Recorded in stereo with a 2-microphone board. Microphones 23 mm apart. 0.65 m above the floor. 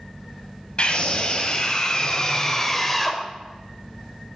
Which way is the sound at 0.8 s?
45° left (ahead or behind).